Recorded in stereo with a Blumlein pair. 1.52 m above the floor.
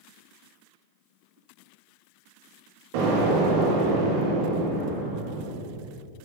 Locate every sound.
2.9 s an explosion: 50° right, 2.5 m